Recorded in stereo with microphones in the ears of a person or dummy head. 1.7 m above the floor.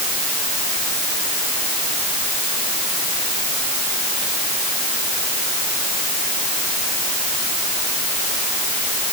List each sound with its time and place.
Only background noise.